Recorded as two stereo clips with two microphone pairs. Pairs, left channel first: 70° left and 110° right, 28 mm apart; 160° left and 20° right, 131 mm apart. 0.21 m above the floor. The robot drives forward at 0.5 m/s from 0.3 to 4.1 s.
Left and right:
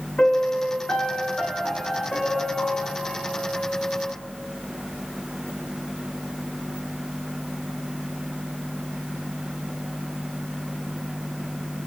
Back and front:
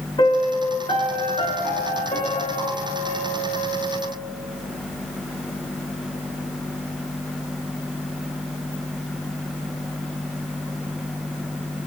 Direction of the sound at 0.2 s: 110° left.